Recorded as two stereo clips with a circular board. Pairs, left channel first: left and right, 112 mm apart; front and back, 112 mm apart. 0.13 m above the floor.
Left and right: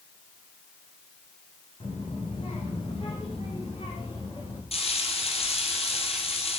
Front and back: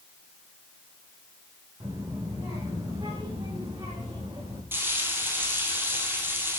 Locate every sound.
1.8 s a child speaking: 120° left, 7.5 m; by 4.6 s 130° left, 7.5 m
4.7 s frying: 110° left, 3.5 m